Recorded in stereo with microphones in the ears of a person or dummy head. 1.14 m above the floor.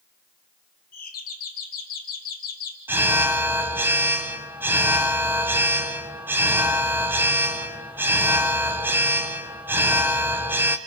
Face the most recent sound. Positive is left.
turn(degrees=-5)  # may be behind; listen again after turning